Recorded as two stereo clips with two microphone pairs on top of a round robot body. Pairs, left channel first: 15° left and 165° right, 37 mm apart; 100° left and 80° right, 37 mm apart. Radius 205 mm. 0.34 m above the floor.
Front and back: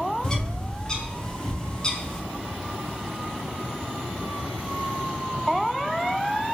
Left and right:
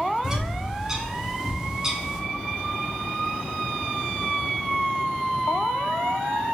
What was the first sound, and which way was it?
A bird, 40° right.